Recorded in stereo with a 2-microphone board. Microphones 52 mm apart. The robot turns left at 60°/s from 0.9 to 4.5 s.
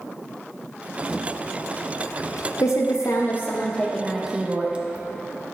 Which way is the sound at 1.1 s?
Centre (ahead or behind).